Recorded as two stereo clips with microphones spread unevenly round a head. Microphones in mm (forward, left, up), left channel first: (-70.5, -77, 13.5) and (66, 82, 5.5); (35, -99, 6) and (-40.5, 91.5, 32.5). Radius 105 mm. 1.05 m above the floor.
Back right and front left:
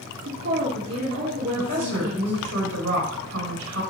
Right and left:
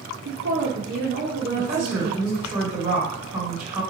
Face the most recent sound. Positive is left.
turn(degrees=35)